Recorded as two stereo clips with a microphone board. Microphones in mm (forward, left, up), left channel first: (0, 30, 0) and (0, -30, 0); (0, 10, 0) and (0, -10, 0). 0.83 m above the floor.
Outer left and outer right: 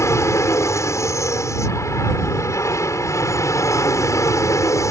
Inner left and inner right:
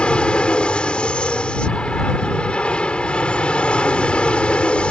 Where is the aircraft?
55° left (ahead or behind); by 4.9 s 60° left (ahead or behind).